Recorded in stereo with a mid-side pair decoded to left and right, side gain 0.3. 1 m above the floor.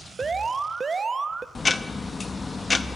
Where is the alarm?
45° right, 0.6 m.